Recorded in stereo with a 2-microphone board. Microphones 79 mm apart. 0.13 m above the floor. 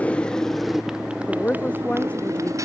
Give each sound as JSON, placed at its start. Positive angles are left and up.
{"t": 0.0, "sound": "a motorcycle", "side_deg": 15}
{"t": 1.3, "sound": "a woman speaking", "side_deg": 20}